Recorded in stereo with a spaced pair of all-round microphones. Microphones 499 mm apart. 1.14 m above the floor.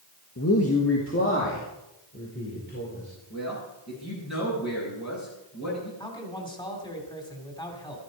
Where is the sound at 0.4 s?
30° left (ahead or behind), 1.4 m; by 3.1 s 20° left (ahead or behind), 5 m.